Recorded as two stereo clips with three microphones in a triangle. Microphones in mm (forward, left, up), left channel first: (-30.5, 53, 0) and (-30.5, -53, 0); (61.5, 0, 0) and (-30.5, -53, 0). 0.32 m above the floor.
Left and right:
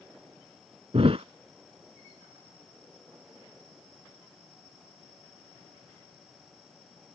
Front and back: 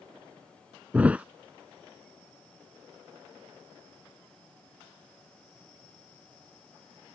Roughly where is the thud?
Right.